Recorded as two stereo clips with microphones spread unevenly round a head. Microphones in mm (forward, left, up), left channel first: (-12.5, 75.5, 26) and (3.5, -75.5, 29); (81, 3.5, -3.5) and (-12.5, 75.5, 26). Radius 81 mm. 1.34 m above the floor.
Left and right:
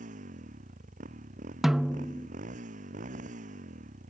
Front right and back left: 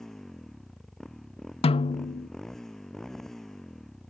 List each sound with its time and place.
0.0 s a motorcycle: 125° right
1.6 s a snare drum: 5° left